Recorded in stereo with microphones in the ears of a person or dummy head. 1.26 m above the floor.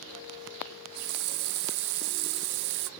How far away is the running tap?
About 0.7 m.